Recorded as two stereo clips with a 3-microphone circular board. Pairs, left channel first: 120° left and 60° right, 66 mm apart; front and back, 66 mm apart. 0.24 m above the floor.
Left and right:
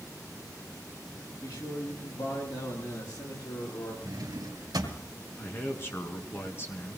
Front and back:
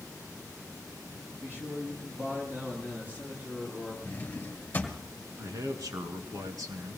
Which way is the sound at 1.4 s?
120° left.